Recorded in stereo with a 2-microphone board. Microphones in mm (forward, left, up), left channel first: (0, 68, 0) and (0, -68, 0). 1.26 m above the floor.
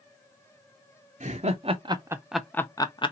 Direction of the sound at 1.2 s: 60° right (ahead or behind).